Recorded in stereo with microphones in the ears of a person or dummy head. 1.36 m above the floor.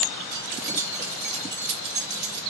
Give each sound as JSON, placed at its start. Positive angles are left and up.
{"t": 0.3, "sound": "keys jangling", "side_deg": -35, "distance_m": 0.8}